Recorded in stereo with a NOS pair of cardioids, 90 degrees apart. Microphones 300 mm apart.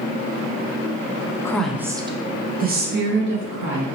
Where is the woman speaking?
10° left, 0.6 m; by 3.9 s 45° right, 1.5 m.